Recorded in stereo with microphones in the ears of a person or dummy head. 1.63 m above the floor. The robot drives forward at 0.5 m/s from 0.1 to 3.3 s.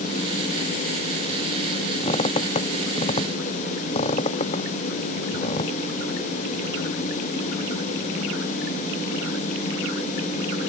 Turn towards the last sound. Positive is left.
turn(degrees=35)  # may be behind; listen again after turning